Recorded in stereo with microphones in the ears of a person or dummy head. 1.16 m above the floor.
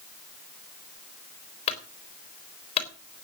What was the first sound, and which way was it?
A clunk, 40° left (ahead or behind).